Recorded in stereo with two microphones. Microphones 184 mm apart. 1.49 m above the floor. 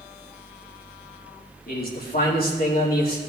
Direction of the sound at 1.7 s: 60° left (ahead or behind).